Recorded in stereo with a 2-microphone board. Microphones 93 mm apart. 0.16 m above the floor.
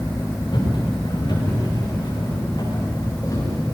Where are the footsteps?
55° left (ahead or behind), 8.5 m; by 3.6 s 40° left (ahead or behind), 8.5 m.